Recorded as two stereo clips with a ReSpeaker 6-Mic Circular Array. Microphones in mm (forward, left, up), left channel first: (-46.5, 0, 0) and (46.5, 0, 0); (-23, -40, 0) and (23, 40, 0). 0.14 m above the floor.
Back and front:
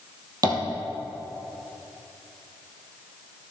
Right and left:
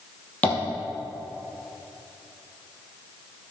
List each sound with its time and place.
0.4 s tapping: 45° right, 2.5 m